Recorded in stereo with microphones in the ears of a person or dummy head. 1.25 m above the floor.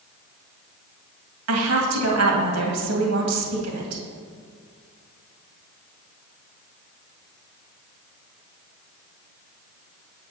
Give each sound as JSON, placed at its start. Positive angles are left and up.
{"t": 1.5, "sound": "a woman speaking", "side_deg": -80, "distance_m": 2.0}